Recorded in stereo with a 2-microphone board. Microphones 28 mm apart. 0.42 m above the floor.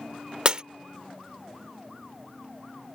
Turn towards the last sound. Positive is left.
turn(degrees=-35)  # may be behind; listen again after turning